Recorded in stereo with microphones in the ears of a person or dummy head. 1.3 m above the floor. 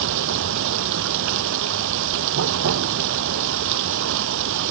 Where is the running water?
70° right (ahead or behind).